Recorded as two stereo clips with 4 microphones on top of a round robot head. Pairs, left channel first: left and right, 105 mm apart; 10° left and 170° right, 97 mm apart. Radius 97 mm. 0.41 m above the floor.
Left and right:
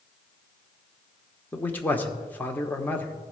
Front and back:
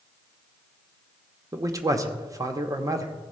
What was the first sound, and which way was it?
A man speaking, 155° left.